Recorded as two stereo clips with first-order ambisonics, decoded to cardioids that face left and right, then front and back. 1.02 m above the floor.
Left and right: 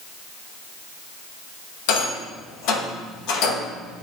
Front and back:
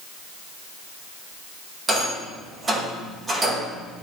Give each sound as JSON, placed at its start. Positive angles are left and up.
{"t": 1.9, "sound": "a rattle", "azimuth_deg": 105, "distance_m": 1.2}